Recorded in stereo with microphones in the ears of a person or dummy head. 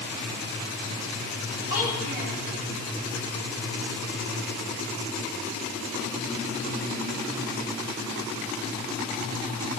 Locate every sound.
1.7 s a child speaking: 70° left (ahead or behind), 10 m